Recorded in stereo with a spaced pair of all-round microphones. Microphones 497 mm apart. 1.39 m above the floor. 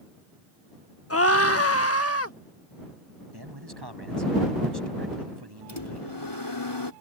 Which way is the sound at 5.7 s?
55° left (ahead or behind).